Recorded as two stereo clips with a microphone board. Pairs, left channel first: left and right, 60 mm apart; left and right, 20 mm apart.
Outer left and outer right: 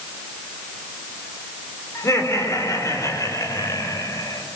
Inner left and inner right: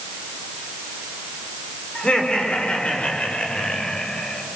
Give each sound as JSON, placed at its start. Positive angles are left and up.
{"t": 1.9, "sound": "laughter", "side_deg": 55, "distance_m": 5.0}